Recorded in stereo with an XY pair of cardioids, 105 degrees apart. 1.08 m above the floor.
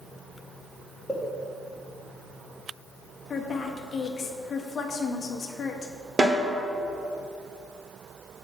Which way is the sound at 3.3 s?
45° left.